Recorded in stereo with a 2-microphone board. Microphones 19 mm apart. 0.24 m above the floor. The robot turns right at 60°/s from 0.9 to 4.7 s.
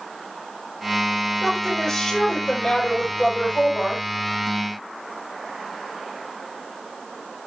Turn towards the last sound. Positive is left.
turn(degrees=180)